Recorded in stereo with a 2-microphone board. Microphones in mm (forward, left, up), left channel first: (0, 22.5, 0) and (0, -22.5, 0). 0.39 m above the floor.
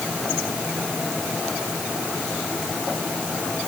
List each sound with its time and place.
Only background noise.